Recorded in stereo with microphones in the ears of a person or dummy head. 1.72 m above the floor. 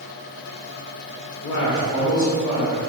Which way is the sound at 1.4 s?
75° left (ahead or behind).